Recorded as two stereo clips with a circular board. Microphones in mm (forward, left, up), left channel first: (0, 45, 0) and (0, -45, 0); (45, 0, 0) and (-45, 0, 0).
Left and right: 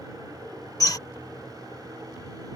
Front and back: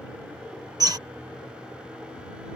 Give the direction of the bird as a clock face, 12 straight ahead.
7 o'clock.